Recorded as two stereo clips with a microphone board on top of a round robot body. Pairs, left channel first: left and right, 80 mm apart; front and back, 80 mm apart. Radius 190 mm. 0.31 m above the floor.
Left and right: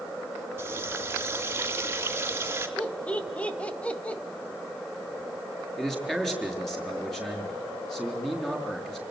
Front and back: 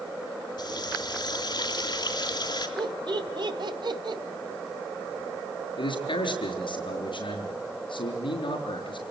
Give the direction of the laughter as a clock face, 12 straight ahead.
7 o'clock.